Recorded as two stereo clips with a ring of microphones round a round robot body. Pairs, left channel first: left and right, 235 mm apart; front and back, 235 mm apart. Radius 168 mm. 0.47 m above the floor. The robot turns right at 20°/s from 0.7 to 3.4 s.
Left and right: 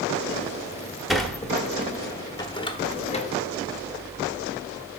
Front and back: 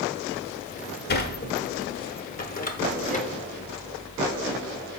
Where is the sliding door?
Straight ahead, 0.9 m; by 3.3 s 45° left, 0.9 m.